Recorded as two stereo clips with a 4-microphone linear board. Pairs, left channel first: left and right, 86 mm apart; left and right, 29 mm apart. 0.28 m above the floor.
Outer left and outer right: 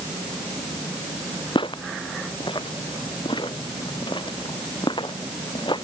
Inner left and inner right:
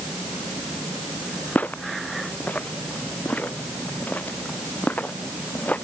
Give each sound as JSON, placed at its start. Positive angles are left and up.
{"t": 1.6, "sound": "footsteps", "side_deg": 70}